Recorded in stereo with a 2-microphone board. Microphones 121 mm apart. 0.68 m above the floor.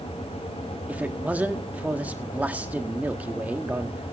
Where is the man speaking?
15° right (ahead or behind), 1.3 m.